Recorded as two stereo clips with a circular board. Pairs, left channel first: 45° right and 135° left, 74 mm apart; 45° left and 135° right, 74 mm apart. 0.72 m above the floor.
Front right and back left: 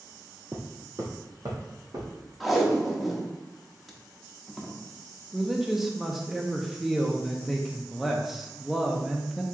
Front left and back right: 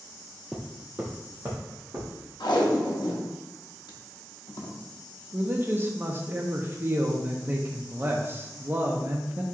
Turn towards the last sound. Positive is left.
turn(degrees=-140)